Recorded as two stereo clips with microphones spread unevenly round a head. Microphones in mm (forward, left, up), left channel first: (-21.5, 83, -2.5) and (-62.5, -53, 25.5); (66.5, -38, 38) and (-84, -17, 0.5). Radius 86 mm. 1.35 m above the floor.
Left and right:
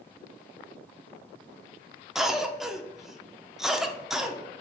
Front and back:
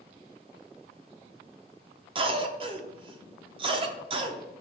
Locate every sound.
2.1 s a cough: 155° left, 0.5 m